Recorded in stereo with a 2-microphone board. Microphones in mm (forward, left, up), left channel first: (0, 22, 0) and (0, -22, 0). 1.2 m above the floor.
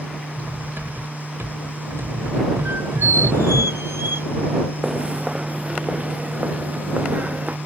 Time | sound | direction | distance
0.4 | cutlery clinking | 80° right | ?
2.6 | a squeak | 80° right | ?
4.8 | footsteps | 15° right (ahead or behind) | ?